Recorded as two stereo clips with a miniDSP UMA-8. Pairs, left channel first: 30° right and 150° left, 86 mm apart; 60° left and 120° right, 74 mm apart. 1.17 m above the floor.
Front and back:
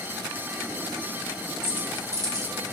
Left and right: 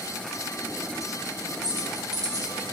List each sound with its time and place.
1.6 s keys jangling: 140° right, 1.1 m; by 2.7 s 175° right, 0.8 m